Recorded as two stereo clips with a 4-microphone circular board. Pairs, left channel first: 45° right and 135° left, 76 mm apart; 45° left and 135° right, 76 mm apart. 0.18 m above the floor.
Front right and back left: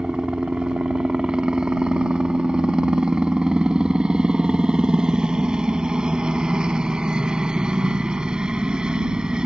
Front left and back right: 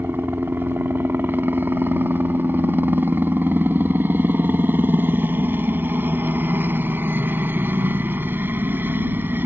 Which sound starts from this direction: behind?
A helicopter, at 0.0 s.